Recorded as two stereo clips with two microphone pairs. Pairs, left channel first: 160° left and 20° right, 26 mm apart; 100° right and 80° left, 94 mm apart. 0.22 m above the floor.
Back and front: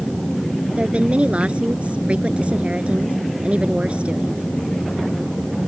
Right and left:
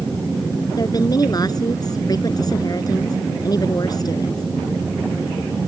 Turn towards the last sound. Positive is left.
turn(degrees=-60)